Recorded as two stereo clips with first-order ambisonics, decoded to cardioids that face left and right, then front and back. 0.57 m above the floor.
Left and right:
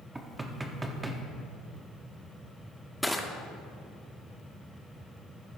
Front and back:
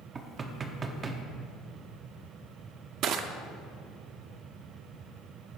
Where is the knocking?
150° right, 0.7 m.